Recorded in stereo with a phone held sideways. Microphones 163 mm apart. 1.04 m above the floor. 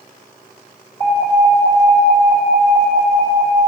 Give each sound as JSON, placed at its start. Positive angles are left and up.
{"t": 1.0, "sound": "an alarm", "side_deg": 35, "distance_m": 2.5}